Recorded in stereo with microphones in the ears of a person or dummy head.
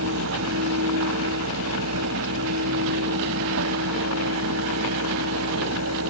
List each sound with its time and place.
0.0 s a fan: 80° right